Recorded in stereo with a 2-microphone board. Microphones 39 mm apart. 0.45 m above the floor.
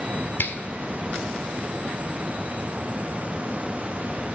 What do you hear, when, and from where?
0.4 s a finger snap: 60° left (ahead or behind), 1.3 m